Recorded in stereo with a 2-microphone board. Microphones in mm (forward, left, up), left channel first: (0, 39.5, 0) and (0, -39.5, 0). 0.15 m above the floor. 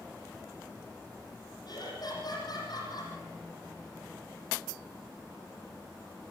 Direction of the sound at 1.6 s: 55° left (ahead or behind).